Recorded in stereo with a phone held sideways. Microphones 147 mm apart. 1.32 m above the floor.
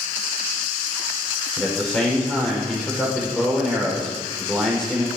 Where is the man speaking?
5° left (ahead or behind), 5 m.